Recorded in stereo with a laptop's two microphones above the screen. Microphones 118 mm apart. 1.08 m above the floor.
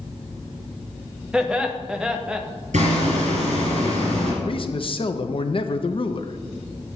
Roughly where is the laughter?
Centre.